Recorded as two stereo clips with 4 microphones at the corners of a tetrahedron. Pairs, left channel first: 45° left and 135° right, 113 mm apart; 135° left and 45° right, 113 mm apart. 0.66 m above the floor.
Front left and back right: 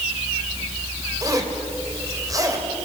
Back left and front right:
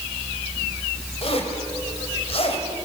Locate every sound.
1.2 s a zipper: 165° left, 3 m